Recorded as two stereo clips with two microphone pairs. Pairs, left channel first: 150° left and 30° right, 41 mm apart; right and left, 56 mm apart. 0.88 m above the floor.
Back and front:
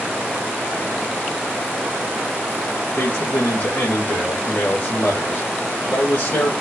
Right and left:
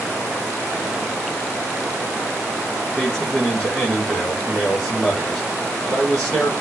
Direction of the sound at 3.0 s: 170° right.